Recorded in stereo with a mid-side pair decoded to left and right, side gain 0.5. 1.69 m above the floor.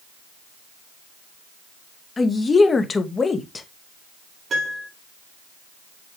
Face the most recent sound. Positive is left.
turn(degrees=-40)